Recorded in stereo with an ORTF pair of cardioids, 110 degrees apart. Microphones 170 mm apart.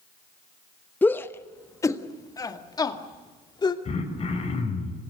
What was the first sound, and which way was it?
A shout, 10° left.